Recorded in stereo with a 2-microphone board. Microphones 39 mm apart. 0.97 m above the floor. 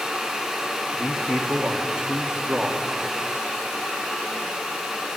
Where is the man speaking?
25° right (ahead or behind), 1.9 m.